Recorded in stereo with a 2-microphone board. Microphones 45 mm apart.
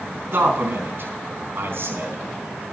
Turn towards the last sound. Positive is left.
turn(degrees=-60)  # may be behind; listen again after turning